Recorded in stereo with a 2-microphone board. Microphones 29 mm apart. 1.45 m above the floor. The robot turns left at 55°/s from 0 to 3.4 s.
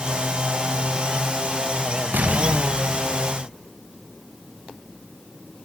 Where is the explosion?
85° right, 2 m; by 3.5 s 155° right, 2 m.